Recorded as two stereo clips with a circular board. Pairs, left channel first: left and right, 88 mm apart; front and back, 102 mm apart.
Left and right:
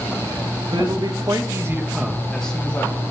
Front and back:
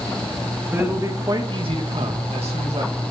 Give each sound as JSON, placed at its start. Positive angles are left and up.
{"t": 0.7, "sound": "a man speaking", "azimuth_deg": -110, "distance_m": 2.0}